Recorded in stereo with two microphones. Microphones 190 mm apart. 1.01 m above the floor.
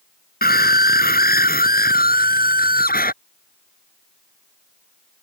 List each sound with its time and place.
0.4 s a scream: 50° left (ahead or behind)